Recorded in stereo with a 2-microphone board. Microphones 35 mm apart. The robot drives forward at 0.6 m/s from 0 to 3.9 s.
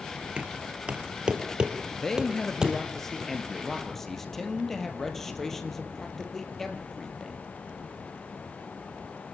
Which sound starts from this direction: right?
Knocking, at 0.4 s.